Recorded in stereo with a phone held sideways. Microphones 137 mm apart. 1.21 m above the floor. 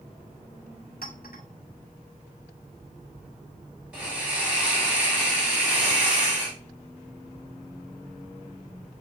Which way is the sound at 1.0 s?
75° left (ahead or behind).